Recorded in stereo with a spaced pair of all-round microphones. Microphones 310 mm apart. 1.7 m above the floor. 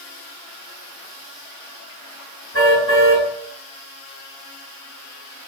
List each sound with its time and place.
2.5 s a car horn: 45° left (ahead or behind), 8.5 m